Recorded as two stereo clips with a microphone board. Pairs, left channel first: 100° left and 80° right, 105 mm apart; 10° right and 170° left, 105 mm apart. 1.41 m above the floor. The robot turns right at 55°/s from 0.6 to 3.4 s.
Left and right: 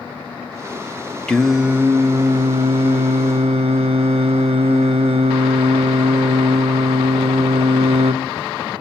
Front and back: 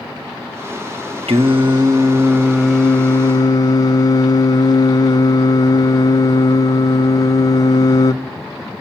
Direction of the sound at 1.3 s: Straight behind.